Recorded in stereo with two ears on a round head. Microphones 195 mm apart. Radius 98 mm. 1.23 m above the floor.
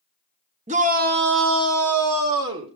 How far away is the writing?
I don't hear writing.